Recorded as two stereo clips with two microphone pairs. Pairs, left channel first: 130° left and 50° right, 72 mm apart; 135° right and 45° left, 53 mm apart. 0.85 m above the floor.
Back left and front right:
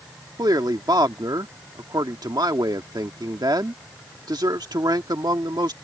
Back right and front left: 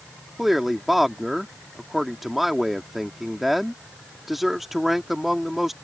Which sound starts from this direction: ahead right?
A man speaking, at 0.4 s.